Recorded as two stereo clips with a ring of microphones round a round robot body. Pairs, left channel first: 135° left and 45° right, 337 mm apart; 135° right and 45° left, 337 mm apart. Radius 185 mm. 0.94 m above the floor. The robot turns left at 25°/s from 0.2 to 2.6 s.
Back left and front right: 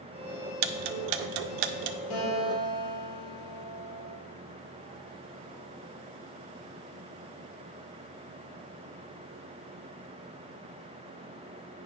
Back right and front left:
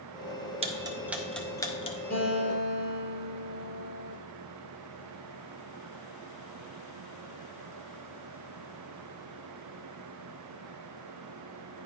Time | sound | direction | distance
0.6 | ticking | 30° right | 0.5 m
2.1 | a guitar | 160° left | 3.5 m